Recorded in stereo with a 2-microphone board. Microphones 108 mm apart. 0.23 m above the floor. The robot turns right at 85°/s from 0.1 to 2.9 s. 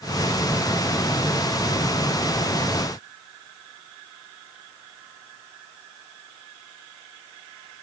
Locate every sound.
Only background noise.